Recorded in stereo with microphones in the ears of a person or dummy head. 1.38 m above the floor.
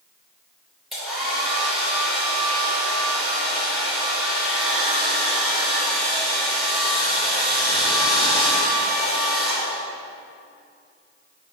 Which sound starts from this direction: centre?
A hair dryer, at 0.9 s.